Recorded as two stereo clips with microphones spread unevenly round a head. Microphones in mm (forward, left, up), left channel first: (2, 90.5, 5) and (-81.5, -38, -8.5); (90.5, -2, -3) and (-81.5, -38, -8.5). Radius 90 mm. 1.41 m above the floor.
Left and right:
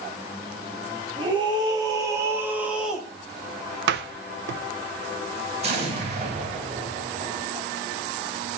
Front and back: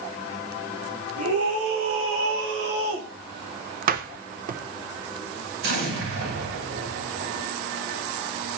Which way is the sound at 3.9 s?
125° right.